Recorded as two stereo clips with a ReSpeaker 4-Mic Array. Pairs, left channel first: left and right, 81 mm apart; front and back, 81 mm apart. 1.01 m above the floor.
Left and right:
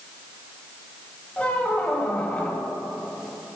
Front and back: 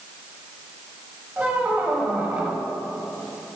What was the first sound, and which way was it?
A squeak, 140° left.